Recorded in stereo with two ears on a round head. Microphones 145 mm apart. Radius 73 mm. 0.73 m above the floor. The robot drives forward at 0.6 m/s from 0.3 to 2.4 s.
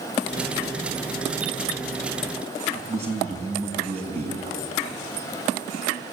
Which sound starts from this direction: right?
A man speaking, at 2.7 s.